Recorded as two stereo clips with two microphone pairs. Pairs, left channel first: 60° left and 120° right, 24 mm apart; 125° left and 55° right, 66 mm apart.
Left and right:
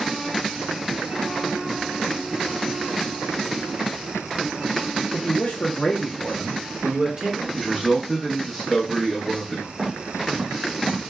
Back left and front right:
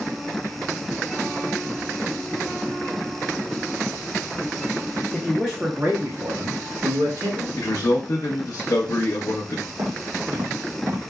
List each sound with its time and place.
5.1 s a man speaking: 45° left, 1.0 m; by 7.5 s 60° right, 1.8 m
7.6 s a man speaking: 145° left, 0.9 m
9.8 s footsteps: 70° right, 2 m; by 11.1 s 95° right, 1.5 m